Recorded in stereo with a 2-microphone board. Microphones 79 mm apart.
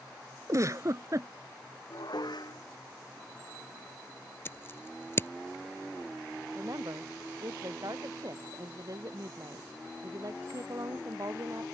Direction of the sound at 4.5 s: 30° left (ahead or behind).